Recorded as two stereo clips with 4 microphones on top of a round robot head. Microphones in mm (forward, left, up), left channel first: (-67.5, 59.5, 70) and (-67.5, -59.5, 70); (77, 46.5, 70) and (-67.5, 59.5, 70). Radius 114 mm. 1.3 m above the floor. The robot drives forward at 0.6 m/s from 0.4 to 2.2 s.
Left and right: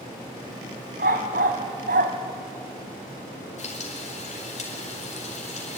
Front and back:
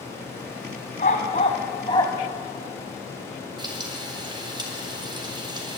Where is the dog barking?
60° right, 2 m; by 2.1 s 80° right, 2 m.